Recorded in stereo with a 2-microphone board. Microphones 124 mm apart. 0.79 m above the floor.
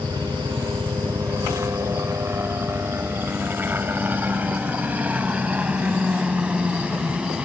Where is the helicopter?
35° right (ahead or behind); by 7.5 s 10° right (ahead or behind).